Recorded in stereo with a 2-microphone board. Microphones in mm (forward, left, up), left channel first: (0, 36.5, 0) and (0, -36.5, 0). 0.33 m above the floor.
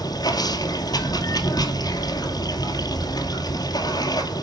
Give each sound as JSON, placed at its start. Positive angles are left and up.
{"t": 0.0, "sound": "running water", "side_deg": 65, "distance_m": 1.9}